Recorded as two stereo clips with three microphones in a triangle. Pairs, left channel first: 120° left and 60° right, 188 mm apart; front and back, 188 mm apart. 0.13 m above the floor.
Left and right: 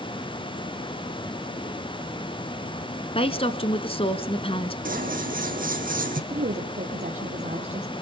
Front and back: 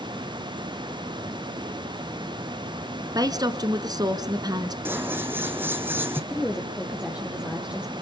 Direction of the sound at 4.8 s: 100° right.